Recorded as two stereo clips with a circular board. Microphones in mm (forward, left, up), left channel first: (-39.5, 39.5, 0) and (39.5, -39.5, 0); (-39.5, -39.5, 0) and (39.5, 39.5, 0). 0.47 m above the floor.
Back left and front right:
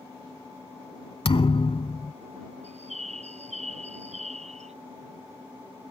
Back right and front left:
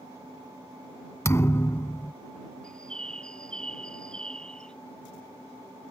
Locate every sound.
1.2 s a thud: 165° left
2.6 s a bird: 55° right